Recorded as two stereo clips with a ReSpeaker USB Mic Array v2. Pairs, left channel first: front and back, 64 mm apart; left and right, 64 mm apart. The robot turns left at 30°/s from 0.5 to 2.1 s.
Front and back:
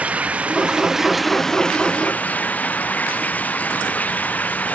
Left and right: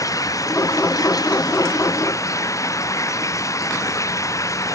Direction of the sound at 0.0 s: 110° left.